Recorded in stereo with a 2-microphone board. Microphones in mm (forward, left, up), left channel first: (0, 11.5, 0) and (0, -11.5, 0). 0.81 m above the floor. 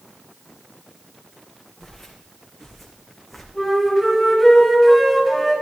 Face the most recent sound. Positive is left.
turn(degrees=0)  # may be behind; listen again after turning